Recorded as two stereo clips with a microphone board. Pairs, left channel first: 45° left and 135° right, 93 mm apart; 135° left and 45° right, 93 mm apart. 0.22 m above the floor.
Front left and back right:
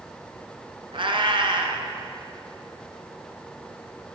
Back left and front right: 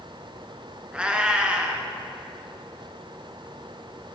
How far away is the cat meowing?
About 0.8 m.